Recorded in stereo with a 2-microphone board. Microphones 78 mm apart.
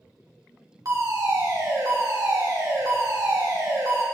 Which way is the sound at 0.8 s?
45° right (ahead or behind).